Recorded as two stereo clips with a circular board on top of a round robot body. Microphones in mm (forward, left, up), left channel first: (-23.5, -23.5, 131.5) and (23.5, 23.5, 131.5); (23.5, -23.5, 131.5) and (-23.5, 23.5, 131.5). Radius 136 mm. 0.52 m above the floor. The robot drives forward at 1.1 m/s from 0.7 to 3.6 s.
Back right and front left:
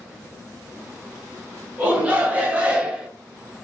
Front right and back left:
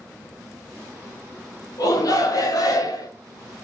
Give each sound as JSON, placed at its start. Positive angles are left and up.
{"t": 1.8, "sound": "a shout", "azimuth_deg": -20, "distance_m": 4.0}